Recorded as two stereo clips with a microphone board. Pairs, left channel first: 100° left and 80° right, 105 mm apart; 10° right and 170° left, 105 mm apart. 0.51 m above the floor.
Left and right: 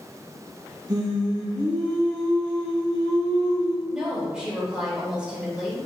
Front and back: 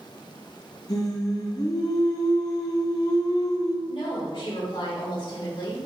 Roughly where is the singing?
Ahead right.